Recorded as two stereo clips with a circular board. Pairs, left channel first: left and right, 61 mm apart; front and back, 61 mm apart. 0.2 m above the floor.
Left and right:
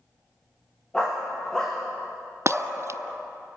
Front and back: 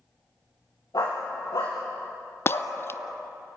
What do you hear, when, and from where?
0.9 s a dog barking: 10° left, 6.5 m; by 2.7 s straight ahead, 6.5 m
2.5 s breaking glass: 50° right, 0.5 m